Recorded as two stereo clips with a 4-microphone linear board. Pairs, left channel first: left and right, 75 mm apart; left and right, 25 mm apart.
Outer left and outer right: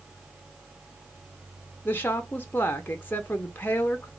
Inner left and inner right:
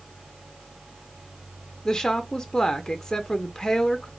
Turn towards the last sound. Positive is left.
turn(degrees=25)  # may be behind; listen again after turning